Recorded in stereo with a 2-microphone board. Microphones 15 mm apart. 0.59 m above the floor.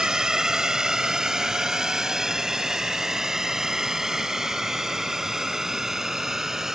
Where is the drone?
45° right (ahead or behind); by 6.8 s 25° right (ahead or behind).